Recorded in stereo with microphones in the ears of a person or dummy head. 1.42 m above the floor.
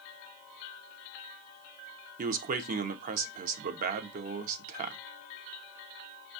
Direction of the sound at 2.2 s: 45° right (ahead or behind).